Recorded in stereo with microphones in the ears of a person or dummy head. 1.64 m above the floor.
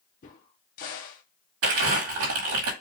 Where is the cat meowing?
I don't hear a cat meowing.